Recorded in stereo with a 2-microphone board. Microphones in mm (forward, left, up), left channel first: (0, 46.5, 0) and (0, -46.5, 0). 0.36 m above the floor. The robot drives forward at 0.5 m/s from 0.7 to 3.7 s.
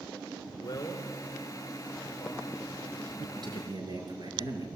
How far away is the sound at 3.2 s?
About 6.5 m.